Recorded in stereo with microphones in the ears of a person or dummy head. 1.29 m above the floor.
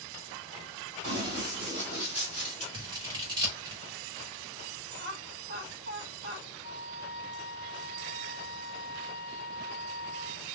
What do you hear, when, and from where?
1.0 s running footsteps: 35° right (ahead or behind), 1.5 m; by 2.6 s 5° left (ahead or behind), 1.5 m
2.7 s scissors: 20° right (ahead or behind), 0.8 m
5.0 s laughter: 40° right (ahead or behind), 1.4 m
6.6 s a flute: 25° right (ahead or behind), 1.2 m